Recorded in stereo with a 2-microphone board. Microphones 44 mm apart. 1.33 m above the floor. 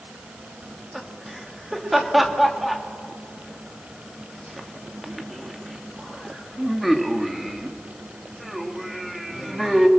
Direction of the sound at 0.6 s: Centre (ahead or behind).